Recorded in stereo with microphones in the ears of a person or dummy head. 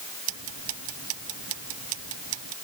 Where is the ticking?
85° right.